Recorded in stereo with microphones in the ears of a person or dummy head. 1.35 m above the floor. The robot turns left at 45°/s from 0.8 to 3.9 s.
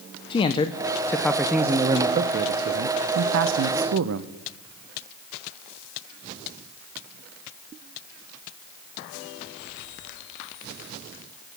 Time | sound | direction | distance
0.3 | a man speaking | 30° left | 0.5 m